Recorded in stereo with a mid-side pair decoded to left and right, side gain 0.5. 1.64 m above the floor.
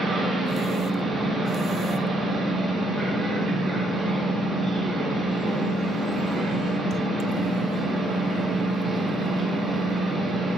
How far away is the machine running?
About 0.8 m.